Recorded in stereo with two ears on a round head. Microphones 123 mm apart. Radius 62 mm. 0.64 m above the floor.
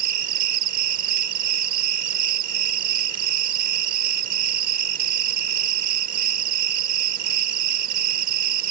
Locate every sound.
0.0 s an insect: 70° right (ahead or behind)